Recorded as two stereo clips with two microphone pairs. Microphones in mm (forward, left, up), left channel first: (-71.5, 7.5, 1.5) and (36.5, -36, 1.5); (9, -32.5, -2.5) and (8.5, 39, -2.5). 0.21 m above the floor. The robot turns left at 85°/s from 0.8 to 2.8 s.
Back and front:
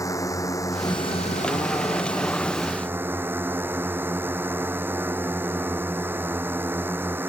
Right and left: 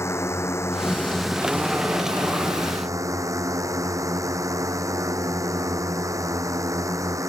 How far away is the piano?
I don't hear a piano.